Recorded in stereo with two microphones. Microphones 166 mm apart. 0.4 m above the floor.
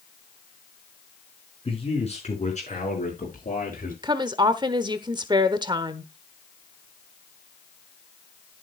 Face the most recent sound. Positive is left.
turn(degrees=-25)  # may be behind; listen again after turning